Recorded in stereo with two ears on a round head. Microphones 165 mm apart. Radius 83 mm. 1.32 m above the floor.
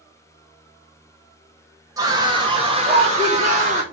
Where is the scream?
20° right (ahead or behind), 2.5 m; by 3.8 s 40° right (ahead or behind), 3.5 m.